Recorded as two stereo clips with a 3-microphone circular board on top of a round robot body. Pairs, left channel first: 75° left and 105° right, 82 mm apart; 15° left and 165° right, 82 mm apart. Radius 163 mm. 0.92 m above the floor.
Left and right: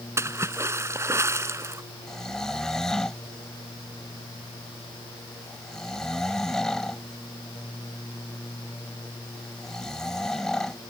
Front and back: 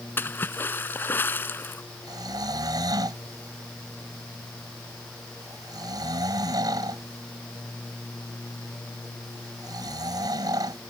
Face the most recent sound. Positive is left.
turn(degrees=160)